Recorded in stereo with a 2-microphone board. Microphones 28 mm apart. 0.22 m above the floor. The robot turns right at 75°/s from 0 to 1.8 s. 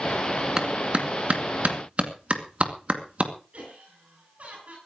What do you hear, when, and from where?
0.6 s a clap: 20° right (ahead or behind), 2.5 m; by 3.3 s 50° right (ahead or behind), 2.5 m
3.5 s laughter: 55° right (ahead or behind), 6.5 m